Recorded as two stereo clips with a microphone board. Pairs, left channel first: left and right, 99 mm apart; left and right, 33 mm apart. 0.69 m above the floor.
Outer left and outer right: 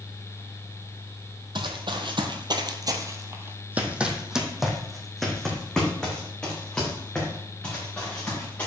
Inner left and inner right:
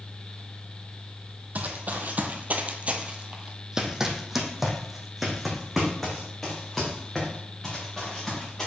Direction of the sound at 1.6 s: 55° right (ahead or behind).